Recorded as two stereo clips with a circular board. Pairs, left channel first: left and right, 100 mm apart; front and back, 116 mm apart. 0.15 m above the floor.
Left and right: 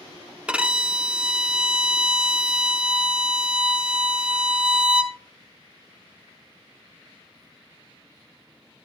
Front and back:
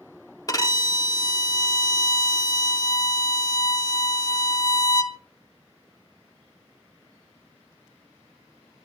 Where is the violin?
20° right, 0.5 m.